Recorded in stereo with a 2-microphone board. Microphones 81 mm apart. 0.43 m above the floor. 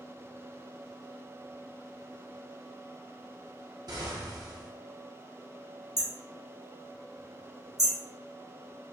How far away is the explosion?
About 0.6 m.